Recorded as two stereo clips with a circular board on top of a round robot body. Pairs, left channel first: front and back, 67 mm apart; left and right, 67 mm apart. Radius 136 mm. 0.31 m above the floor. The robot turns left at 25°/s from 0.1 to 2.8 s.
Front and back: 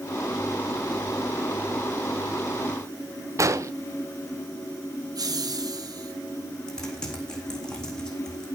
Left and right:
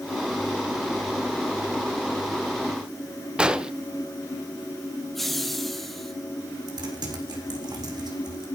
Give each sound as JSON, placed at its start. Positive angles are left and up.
{"t": 3.4, "sound": "an explosion", "azimuth_deg": -165, "distance_m": 1.5}
{"t": 5.2, "sound": "laughter", "azimuth_deg": 175, "distance_m": 3.0}
{"t": 6.7, "sound": "typing on a keyboard", "azimuth_deg": -80, "distance_m": 4.0}